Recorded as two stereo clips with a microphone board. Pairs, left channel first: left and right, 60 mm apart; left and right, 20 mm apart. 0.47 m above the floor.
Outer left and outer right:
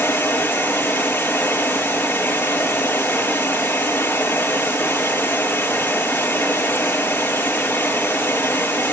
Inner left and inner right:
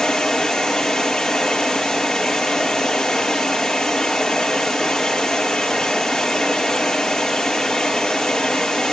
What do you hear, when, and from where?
0.0 s running water: 40° left (ahead or behind), 6.5 m